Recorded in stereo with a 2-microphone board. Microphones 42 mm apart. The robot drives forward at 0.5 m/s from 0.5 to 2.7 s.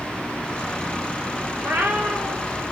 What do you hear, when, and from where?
1.6 s a cat meowing: 75° right (ahead or behind), 1.0 m; by 2.5 s 50° right (ahead or behind), 1.2 m